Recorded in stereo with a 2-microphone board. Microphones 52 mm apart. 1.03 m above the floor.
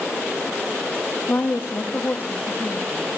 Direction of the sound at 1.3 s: 45° left (ahead or behind).